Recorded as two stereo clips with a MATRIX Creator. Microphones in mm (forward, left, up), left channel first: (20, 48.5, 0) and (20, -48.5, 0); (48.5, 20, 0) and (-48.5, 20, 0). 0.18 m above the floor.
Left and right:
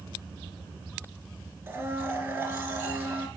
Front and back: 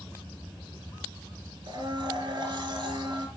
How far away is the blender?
About 1.8 m.